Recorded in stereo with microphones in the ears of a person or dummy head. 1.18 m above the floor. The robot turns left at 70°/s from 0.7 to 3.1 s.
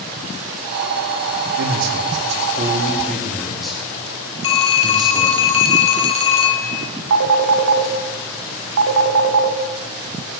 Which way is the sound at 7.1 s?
60° right (ahead or behind).